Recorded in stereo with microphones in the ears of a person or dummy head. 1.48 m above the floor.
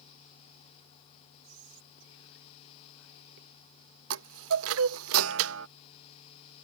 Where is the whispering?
70° right (ahead or behind).